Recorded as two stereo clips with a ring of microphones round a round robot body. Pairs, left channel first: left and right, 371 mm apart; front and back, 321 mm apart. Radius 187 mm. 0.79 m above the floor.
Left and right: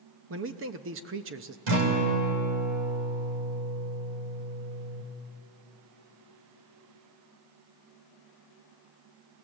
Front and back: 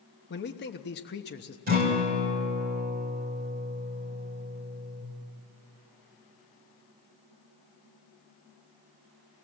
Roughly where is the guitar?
Behind right.